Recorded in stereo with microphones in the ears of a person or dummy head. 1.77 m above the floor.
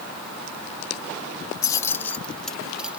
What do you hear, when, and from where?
1.6 s keys jangling: 20° left (ahead or behind); by 3.0 s 10° right (ahead or behind)